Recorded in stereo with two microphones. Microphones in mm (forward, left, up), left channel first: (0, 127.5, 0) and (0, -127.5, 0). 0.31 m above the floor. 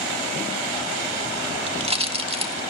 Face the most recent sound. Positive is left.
turn(degrees=-20)  # may be behind; listen again after turning